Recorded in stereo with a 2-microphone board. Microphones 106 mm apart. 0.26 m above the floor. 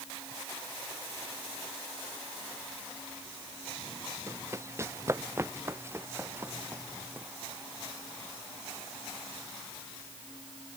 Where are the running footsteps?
25° right (ahead or behind); by 7.3 s 20° right (ahead or behind).